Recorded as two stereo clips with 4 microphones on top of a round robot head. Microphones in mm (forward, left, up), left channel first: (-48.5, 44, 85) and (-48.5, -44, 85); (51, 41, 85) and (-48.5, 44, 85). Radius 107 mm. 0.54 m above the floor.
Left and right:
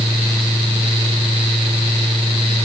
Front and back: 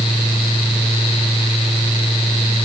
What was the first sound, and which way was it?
Only background noise.